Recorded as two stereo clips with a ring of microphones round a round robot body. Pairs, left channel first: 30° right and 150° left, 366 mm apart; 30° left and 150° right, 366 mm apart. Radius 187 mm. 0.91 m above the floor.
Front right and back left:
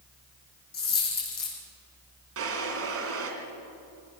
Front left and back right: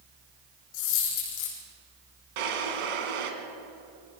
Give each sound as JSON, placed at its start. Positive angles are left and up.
{"t": 0.7, "sound": "a dropped coin", "azimuth_deg": 35, "distance_m": 7.0}
{"t": 2.4, "sound": "a drawer", "azimuth_deg": -155, "distance_m": 2.5}